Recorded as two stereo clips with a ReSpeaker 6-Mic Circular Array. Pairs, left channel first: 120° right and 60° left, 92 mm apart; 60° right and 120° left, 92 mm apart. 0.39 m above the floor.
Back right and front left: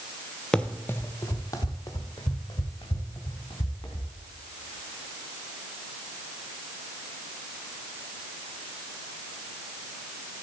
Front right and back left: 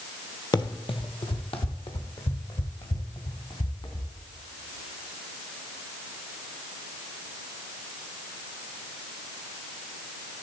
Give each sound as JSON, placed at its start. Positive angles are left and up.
{"t": 0.5, "sound": "running footsteps", "azimuth_deg": -40, "distance_m": 0.5}